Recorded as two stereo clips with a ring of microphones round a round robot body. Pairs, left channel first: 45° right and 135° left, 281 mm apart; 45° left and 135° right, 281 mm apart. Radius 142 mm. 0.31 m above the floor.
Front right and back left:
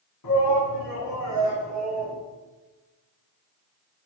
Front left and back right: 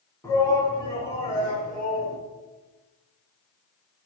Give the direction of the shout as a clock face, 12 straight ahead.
1 o'clock.